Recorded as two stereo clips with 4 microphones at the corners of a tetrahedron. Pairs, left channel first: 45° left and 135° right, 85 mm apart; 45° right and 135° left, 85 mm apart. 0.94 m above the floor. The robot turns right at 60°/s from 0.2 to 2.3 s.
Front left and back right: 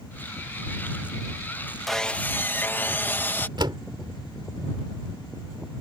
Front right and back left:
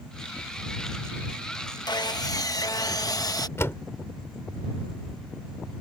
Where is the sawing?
45° right; by 3.5 s 15° right.